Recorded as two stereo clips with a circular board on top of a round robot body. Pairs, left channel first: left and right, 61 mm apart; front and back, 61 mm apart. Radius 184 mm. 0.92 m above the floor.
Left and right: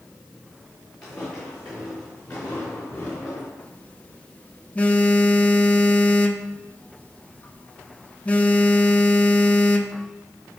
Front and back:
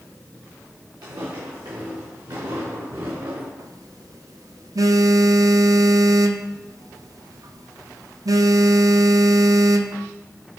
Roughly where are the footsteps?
Behind.